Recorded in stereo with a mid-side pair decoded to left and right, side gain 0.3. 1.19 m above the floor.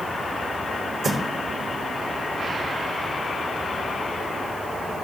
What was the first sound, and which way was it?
Footsteps, 65° right.